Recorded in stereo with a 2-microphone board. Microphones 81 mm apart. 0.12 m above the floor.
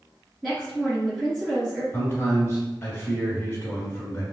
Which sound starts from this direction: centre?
A woman speaking, at 0.4 s.